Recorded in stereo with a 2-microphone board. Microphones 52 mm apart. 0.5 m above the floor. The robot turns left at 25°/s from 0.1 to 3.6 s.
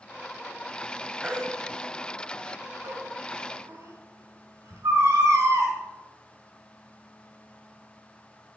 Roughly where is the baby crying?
Right.